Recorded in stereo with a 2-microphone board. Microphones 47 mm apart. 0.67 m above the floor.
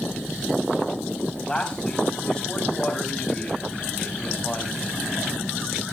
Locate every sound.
1.5 s a man speaking: 15° left (ahead or behind), 5.5 m